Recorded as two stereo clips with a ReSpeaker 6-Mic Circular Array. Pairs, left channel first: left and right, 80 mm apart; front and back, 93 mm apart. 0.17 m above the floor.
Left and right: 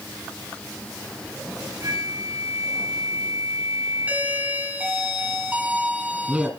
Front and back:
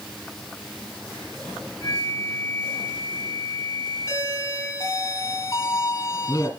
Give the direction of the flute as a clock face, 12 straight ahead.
2 o'clock.